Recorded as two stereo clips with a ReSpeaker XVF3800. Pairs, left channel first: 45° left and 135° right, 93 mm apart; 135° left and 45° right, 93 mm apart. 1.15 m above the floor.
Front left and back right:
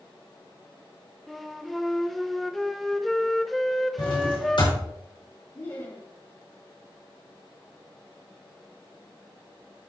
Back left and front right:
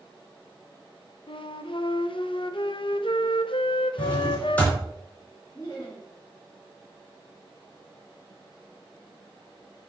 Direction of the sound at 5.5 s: 85° left.